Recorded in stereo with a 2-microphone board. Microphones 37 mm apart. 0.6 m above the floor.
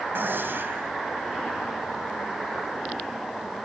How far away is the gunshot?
About 2.5 m.